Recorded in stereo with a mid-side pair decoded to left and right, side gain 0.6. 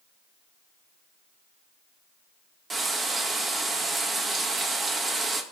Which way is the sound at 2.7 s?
30° right.